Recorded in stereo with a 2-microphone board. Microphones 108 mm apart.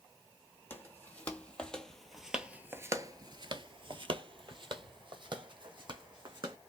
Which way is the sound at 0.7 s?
20° left (ahead or behind).